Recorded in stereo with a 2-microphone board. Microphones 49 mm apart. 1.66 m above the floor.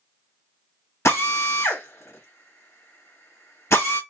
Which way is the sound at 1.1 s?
80° left.